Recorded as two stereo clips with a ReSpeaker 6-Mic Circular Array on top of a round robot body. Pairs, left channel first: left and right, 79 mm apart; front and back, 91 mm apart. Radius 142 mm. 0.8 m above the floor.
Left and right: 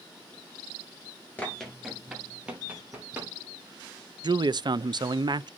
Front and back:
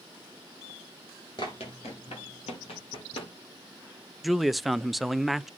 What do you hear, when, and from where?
1.4 s running footsteps: 35° left, 0.8 m; by 3.3 s 20° right, 2 m
4.2 s a man speaking: 90° right, 0.5 m